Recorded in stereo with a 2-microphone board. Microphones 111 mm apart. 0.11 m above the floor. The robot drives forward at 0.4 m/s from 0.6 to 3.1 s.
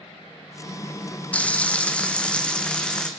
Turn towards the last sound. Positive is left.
turn(degrees=10)  # may be behind; listen again after turning